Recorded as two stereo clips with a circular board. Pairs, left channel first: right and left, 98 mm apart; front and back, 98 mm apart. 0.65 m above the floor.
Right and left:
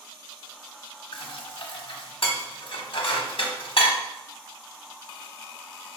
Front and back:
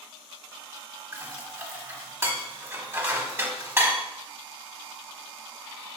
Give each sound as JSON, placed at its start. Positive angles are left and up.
{"t": 1.1, "sound": "dishes clattering", "azimuth_deg": -115, "distance_m": 1.0}